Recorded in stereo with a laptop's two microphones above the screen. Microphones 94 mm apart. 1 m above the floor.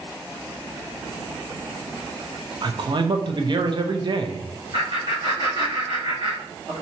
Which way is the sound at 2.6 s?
50° right (ahead or behind).